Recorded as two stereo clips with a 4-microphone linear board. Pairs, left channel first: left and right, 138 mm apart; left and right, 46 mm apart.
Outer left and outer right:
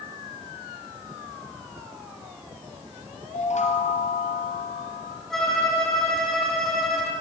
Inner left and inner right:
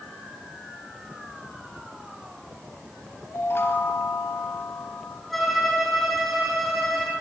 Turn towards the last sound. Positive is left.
turn(degrees=5)  # may be behind; listen again after turning